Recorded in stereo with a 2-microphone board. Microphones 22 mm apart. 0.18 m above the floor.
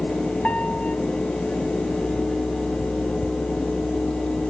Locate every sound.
0.4 s a piano: 70° left (ahead or behind), 3 m